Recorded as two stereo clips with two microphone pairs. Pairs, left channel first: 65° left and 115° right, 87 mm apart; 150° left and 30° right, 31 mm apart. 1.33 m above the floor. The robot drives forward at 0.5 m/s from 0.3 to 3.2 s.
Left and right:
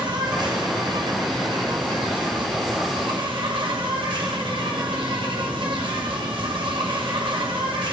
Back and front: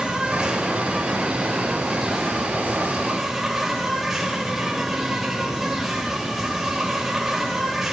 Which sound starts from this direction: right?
An insect, at 0.0 s.